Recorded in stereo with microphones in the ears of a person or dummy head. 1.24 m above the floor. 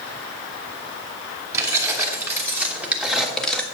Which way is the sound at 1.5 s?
20° right (ahead or behind).